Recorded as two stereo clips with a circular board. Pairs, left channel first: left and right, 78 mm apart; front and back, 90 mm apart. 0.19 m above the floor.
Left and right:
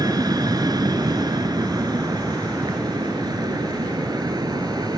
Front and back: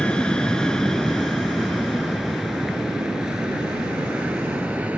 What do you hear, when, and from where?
0.0 s an aircraft: 75° right; by 5.0 s 105° right